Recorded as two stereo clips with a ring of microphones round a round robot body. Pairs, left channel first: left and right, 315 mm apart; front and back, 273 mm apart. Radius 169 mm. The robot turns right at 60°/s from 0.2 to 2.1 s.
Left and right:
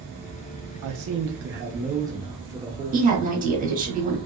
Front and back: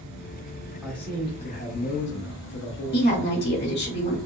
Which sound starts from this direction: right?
A man speaking, at 0.8 s.